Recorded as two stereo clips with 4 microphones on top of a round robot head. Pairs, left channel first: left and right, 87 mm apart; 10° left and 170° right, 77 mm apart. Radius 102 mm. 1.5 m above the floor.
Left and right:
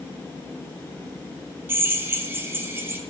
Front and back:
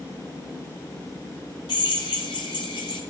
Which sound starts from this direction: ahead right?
A drill, at 1.7 s.